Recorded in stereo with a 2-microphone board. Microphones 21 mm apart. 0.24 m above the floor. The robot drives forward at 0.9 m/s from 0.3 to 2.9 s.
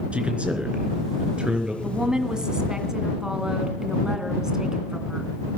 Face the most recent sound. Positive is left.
turn(degrees=-30)  # may be behind; listen again after turning